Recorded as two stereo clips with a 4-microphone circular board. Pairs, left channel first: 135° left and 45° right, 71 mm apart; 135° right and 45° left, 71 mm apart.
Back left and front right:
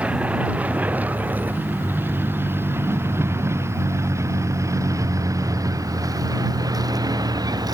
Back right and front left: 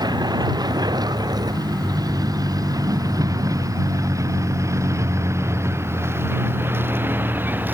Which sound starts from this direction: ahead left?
A vehicle, at 0.0 s.